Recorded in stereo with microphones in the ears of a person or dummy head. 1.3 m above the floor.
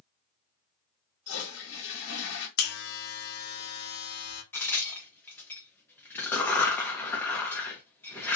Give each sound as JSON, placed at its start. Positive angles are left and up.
{"t": 1.3, "sound": "a toilet flushing", "side_deg": 65, "distance_m": 1.1}
{"t": 2.6, "sound": "a buzzer", "side_deg": 50, "distance_m": 0.7}
{"t": 4.5, "sound": "a crack", "side_deg": 15, "distance_m": 0.8}